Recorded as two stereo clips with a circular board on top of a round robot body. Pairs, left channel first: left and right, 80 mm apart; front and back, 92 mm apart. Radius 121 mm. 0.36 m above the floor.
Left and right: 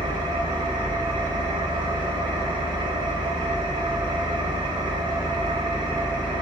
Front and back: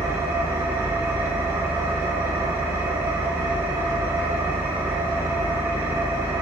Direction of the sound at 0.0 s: 115° right.